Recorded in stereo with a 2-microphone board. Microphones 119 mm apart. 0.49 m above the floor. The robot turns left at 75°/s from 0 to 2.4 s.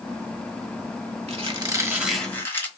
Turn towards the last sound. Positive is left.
turn(degrees=160)